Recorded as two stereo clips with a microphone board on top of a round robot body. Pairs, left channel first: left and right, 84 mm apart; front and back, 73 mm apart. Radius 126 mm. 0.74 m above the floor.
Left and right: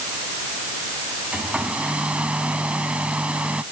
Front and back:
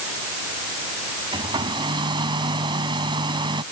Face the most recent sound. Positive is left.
turn(degrees=-170)